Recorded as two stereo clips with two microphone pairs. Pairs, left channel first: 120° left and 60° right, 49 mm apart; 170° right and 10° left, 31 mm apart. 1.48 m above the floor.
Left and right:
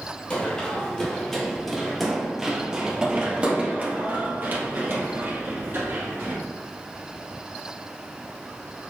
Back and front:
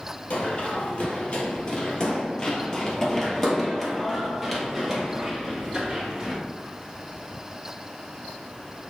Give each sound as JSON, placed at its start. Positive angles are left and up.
{"t": 0.3, "sound": "running footsteps", "azimuth_deg": 180, "distance_m": 2.0}